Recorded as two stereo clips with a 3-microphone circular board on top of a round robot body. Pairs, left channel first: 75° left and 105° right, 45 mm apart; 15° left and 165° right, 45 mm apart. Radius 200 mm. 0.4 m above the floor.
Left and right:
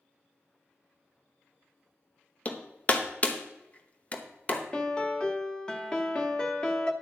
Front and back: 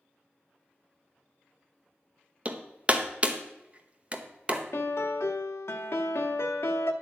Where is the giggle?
No giggle in this recording.